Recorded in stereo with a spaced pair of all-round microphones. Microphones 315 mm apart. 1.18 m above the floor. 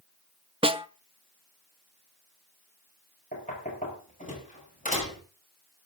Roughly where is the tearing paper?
No tearing paper in this recording.